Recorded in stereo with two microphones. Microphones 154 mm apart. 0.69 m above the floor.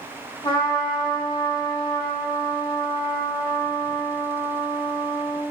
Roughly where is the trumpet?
Left.